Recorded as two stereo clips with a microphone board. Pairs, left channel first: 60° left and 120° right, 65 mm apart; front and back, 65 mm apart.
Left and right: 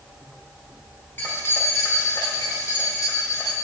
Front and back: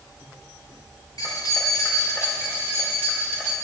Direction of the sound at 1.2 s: 5° left.